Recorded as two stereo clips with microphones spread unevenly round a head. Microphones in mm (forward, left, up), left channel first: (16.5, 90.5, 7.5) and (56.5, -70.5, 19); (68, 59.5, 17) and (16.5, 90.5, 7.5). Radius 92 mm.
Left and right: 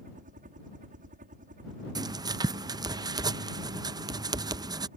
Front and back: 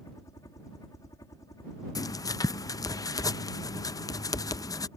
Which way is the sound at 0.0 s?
50° right.